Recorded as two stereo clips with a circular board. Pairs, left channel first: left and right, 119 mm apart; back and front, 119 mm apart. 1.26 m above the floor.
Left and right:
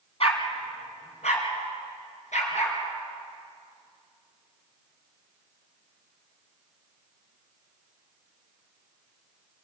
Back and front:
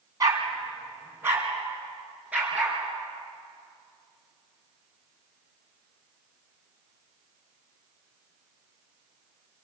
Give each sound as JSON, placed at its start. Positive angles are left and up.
{"t": 0.2, "sound": "a dog barking", "azimuth_deg": 55, "distance_m": 3.5}